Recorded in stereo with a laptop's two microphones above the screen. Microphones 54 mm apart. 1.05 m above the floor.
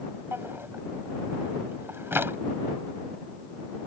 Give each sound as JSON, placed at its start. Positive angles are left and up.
{"t": 0.3, "sound": "a drawer", "side_deg": -45}